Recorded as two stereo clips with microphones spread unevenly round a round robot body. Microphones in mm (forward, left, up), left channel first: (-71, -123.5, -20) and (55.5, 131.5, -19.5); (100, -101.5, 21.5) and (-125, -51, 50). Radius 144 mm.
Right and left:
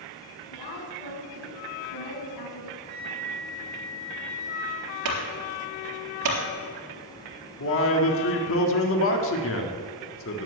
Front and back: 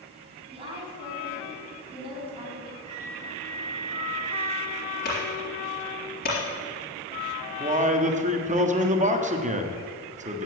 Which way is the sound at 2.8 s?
20° left.